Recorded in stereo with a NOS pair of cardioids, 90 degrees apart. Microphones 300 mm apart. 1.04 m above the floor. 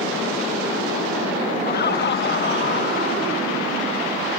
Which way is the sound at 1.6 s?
35° left.